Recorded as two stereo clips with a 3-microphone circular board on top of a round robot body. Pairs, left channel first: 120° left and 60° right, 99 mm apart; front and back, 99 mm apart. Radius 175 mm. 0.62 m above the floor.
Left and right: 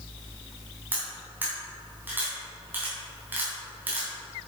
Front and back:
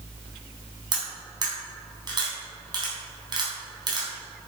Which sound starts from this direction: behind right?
Cutlery clinking, at 0.9 s.